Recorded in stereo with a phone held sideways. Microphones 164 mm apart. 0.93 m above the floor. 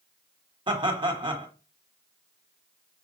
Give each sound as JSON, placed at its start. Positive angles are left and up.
{"t": 0.7, "sound": "laughter", "side_deg": -30, "distance_m": 1.3}